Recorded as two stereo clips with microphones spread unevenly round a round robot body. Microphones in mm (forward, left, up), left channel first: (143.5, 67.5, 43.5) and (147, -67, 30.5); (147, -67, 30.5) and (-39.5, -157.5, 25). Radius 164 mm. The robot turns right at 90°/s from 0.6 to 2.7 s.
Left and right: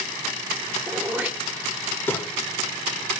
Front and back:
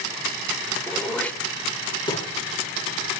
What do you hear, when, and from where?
0.9 s throat clearing: 85° right, 1.4 m; by 2.3 s 45° left, 1.4 m